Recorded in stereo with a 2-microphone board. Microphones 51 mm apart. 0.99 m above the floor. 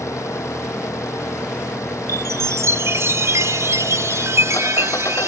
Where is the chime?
65° right (ahead or behind).